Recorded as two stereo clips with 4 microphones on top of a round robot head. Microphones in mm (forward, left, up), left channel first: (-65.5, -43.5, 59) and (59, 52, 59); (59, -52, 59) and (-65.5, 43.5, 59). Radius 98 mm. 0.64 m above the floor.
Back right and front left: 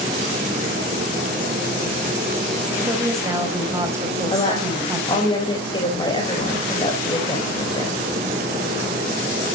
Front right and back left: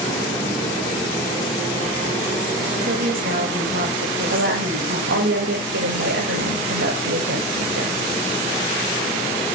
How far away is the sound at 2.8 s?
About 4 m.